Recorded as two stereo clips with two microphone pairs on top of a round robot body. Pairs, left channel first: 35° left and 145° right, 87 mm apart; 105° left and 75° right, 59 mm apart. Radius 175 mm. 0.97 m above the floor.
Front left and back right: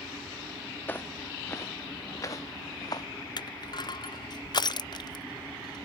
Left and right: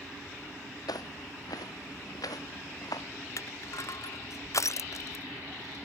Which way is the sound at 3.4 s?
70° left.